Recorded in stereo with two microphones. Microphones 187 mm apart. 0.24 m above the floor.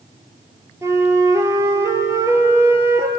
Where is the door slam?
I don't hear a door slam.